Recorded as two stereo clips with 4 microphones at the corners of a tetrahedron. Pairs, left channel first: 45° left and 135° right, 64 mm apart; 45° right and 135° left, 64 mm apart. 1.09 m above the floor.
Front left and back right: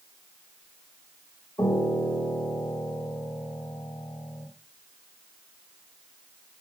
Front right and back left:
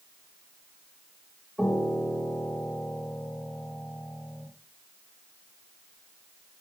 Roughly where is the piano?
Ahead left.